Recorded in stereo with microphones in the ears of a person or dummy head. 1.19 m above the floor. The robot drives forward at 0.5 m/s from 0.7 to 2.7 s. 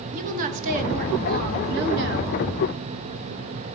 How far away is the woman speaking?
About 1.7 m.